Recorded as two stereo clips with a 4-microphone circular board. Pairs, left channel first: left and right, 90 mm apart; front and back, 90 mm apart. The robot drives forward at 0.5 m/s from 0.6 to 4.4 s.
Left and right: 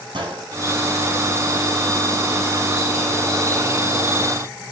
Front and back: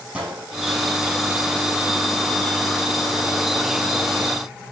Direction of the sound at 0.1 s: 105° right.